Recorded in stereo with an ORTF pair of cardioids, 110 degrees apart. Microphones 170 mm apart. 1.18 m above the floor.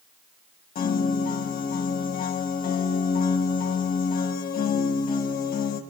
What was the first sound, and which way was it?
A piano, 60° left.